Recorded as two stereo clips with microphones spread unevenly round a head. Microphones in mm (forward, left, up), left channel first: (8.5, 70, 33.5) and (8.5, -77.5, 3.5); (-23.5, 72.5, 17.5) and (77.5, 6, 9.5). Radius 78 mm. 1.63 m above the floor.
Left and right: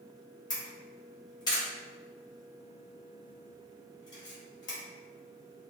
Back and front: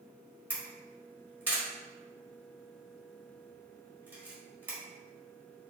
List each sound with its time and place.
0.5 s a camera shutter: 40° left, 1.5 m